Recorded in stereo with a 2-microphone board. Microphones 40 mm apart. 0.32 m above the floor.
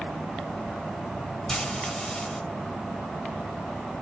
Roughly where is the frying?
Centre.